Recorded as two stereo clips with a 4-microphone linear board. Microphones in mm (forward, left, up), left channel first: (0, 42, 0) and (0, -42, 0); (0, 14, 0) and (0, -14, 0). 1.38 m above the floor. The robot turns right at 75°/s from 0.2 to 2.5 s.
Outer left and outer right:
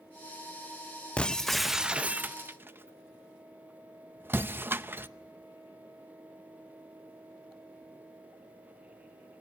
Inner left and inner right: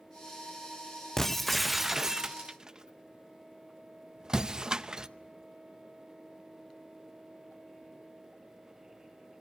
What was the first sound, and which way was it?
Breaking glass, 10° left (ahead or behind).